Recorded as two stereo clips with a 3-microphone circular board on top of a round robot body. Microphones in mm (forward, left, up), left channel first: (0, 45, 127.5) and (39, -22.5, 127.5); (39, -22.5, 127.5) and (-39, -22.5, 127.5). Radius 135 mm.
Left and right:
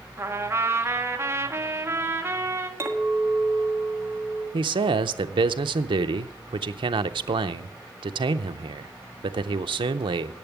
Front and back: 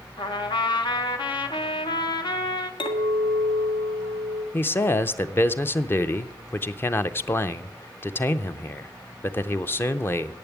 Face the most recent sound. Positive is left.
turn(degrees=-60)